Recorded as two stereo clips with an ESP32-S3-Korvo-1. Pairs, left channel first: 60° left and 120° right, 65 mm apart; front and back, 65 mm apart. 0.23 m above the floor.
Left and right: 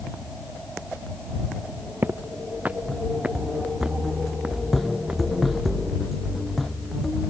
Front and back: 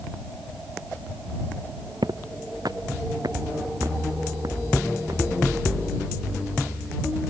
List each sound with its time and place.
2.0 s footsteps: 175° right; by 5.2 s 160° left